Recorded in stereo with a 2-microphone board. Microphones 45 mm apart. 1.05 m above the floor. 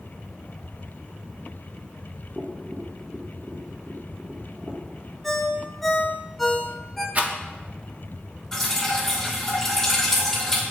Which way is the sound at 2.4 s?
20° right (ahead or behind).